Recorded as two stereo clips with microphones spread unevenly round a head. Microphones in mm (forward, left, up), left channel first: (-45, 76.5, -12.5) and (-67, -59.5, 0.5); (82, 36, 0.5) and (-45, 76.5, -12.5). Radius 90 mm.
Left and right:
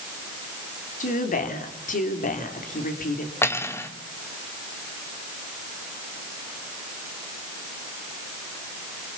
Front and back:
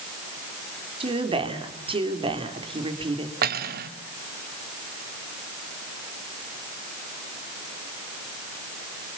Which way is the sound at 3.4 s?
155° left.